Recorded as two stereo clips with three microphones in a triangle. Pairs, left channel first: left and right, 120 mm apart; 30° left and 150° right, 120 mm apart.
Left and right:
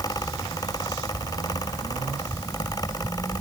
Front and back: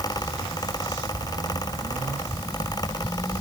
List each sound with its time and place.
Only background noise.